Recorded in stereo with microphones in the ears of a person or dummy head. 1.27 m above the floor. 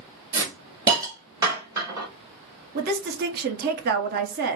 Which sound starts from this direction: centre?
A hiss, at 0.3 s.